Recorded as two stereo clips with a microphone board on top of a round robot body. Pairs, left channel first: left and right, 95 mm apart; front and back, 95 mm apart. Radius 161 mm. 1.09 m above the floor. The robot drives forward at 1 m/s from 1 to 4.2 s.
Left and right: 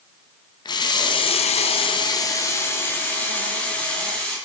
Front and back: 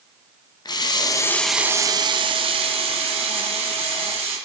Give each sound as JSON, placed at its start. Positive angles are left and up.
{"t": 0.7, "sound": "a running tap", "azimuth_deg": 45, "distance_m": 0.7}